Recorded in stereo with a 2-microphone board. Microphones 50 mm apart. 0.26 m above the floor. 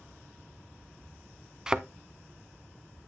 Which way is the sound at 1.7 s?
15° right (ahead or behind).